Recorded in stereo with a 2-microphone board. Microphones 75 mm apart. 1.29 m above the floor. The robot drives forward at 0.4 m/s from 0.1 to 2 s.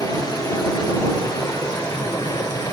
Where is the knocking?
No knocking in this recording.